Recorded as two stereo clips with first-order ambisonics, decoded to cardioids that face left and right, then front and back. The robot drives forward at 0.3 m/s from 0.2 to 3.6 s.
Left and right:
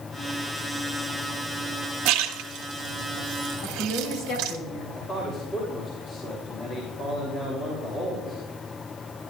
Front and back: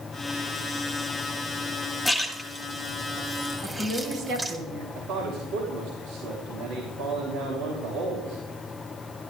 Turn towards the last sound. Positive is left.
turn(degrees=155)